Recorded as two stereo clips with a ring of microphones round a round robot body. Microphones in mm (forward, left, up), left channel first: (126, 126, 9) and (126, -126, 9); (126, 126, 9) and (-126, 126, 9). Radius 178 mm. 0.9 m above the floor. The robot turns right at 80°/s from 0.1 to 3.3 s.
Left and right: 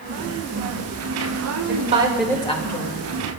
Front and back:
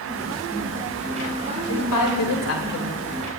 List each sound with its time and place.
1.7 s a woman speaking: 45° right, 3.5 m; by 3.1 s 70° left, 3.5 m